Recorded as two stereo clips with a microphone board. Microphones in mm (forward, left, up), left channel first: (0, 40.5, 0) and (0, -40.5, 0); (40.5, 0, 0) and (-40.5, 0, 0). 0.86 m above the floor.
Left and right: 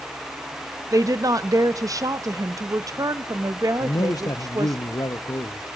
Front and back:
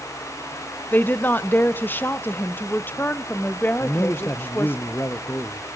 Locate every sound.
0.9 s a woman speaking: 60° right, 0.6 m
3.8 s a man speaking: 55° left, 0.6 m